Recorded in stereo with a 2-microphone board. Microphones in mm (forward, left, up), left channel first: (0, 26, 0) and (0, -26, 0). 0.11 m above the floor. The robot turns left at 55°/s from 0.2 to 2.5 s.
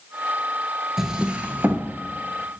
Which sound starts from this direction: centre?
A drawer, at 1.0 s.